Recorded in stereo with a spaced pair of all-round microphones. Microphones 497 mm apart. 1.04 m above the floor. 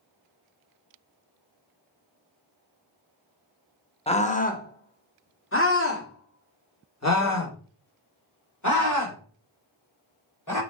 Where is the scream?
10° left (ahead or behind), 1.4 m; by 10.6 s 40° left (ahead or behind), 4.5 m.